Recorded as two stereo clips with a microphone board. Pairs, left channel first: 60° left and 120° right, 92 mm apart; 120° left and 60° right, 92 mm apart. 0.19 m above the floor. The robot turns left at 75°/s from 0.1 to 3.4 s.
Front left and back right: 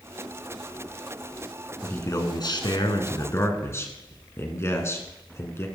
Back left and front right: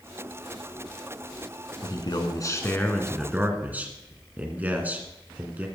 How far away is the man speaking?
About 2.0 m.